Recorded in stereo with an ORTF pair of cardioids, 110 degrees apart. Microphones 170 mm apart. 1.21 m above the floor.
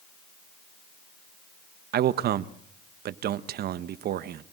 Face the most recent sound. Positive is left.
turn(degrees=-60)